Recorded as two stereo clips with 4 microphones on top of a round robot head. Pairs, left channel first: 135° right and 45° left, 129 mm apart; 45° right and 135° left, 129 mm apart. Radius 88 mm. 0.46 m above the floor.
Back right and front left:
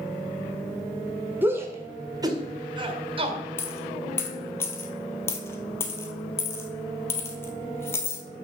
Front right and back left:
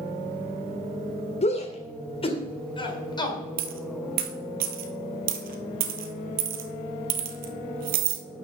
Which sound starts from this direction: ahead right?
A shout, at 1.4 s.